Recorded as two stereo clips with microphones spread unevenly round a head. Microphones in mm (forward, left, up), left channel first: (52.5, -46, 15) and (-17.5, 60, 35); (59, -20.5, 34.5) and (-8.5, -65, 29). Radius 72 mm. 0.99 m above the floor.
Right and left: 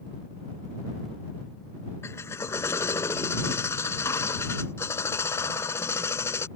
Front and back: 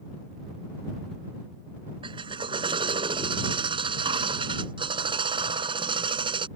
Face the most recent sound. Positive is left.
turn(degrees=-130)